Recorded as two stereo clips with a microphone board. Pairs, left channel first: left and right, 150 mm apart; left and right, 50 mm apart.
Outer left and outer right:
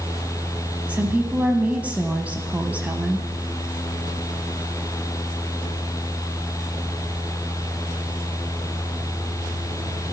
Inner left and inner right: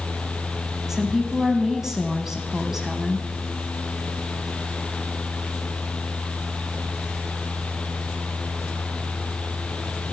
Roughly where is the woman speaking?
Centre.